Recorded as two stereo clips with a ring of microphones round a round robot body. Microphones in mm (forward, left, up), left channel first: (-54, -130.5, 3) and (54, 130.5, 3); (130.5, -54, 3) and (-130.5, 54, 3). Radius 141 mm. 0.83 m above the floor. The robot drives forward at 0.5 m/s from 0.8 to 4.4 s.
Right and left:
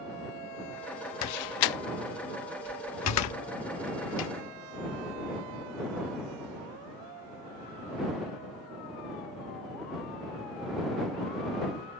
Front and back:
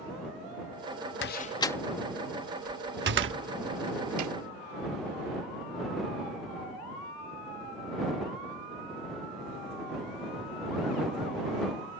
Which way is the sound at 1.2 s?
75° right.